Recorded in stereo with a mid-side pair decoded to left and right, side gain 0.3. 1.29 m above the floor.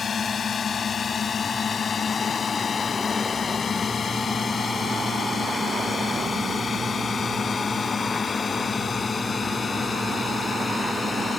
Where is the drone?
70° left; by 11.4 s 55° left.